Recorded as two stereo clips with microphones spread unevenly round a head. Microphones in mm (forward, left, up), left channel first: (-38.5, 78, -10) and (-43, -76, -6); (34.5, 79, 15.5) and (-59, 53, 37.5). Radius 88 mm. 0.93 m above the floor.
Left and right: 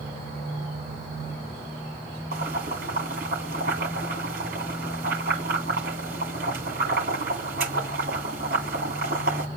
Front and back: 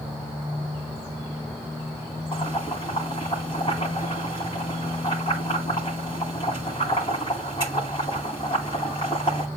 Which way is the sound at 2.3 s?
45° right.